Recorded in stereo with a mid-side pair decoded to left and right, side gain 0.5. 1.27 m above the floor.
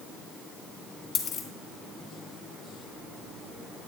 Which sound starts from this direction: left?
A dropped coin, at 1.1 s.